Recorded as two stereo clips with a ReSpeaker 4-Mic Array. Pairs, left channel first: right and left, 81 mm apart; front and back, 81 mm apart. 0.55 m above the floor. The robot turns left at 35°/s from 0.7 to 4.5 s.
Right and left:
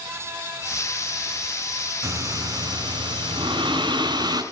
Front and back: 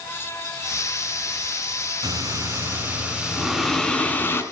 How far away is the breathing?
About 2.5 m.